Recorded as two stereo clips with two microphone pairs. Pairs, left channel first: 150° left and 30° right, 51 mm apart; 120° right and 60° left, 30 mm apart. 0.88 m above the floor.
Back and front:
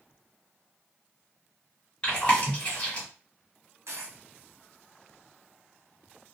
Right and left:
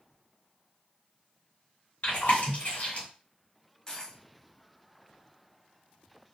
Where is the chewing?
145° right, 1.5 m.